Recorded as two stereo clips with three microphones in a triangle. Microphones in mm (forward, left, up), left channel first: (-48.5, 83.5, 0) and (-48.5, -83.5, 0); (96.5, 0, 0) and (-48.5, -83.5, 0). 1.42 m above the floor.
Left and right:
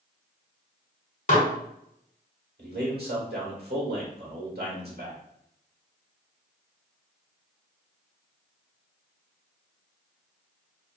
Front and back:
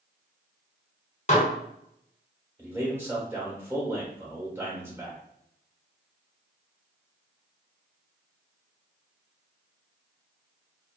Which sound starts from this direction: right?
A man speaking, at 2.6 s.